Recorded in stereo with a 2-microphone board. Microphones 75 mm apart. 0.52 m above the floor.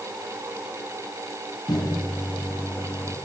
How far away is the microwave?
About 5 m.